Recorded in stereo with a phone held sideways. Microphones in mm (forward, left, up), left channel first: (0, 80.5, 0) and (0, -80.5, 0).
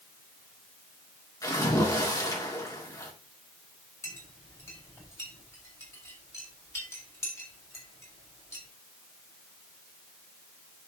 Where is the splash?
20° left (ahead or behind), 2.5 m.